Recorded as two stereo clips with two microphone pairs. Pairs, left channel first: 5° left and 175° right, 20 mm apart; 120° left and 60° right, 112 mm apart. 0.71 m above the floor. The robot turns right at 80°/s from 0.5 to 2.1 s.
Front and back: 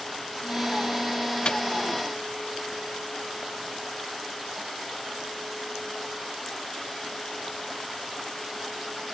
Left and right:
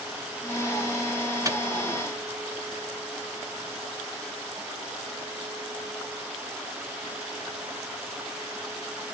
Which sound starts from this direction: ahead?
A microwave, at 1.4 s.